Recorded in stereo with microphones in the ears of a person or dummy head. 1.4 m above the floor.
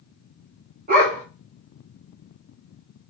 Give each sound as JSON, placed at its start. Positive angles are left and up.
{"t": 0.9, "sound": "a dog barking", "side_deg": -45, "distance_m": 2.0}